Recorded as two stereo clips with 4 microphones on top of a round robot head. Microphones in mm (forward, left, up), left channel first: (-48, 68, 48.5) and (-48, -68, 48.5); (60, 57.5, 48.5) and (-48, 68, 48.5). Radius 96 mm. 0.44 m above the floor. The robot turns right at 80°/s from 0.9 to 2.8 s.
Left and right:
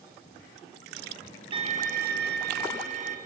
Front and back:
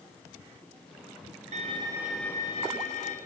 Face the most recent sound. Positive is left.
turn(degrees=-45)